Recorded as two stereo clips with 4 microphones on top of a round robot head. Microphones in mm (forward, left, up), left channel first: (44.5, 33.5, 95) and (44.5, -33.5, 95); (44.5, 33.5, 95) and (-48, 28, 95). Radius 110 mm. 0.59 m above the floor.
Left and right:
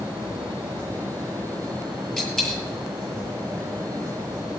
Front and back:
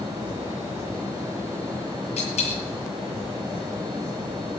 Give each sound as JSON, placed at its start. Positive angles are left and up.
{"t": 2.2, "sound": "a dropped coin", "azimuth_deg": 5, "distance_m": 8.0}